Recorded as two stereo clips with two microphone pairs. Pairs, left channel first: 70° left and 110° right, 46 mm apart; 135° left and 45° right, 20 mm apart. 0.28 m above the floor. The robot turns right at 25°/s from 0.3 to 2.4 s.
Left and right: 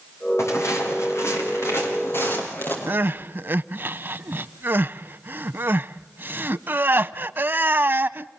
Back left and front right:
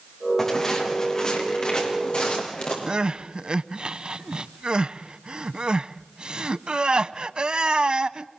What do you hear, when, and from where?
0.4 s footsteps: 60° left, 7.5 m; by 2.8 s 110° left, 9 m
2.9 s crying: 75° right, 0.5 m